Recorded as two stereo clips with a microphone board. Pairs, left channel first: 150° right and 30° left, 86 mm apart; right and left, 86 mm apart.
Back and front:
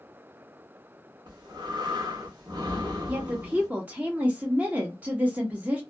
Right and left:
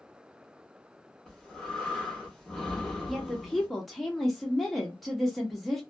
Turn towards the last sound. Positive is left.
turn(degrees=0)